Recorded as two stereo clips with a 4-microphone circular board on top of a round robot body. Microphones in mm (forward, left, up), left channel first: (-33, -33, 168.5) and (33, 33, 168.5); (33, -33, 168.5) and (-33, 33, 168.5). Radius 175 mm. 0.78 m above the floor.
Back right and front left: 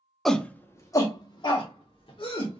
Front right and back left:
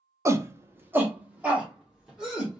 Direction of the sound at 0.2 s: 140° left.